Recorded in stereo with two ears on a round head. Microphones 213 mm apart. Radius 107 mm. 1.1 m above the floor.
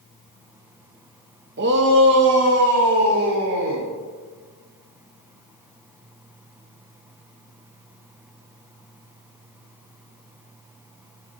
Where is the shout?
45° right (ahead or behind), 0.9 m; by 3.9 s 60° right (ahead or behind), 4 m.